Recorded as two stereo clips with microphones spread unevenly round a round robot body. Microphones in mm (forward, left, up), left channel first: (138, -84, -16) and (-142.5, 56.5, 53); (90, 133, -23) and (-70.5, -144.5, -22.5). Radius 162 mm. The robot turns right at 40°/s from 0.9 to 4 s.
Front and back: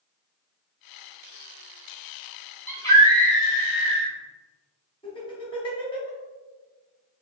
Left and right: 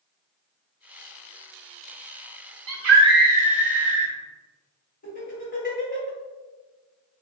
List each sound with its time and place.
2.7 s a scream: 95° right, 1.6 m; by 4.1 s 40° right, 1.6 m
5.0 s laughter: 15° left, 1.7 m